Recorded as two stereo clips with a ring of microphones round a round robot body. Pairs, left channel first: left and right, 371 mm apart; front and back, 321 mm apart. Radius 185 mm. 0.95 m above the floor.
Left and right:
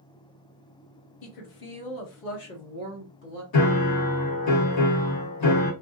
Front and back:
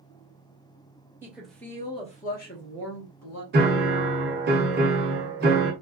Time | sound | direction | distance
1.2 | a woman speaking | 95° left | 1.2 m
3.5 | a piano | 120° left | 1.0 m